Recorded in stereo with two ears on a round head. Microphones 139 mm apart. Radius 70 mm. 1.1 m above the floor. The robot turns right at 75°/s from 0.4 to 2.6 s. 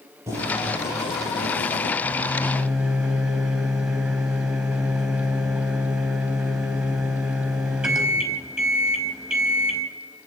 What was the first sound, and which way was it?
Boiling, 20° right.